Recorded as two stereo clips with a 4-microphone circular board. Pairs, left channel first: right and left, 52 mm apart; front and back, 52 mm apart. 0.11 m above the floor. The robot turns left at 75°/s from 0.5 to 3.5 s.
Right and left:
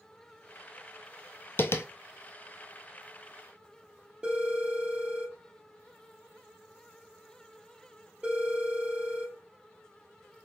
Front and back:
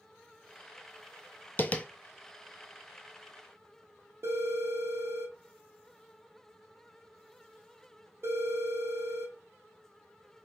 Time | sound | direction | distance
1.6 | tapping | 50° right | 0.6 m
4.2 | a phone ringing | 160° left | 2 m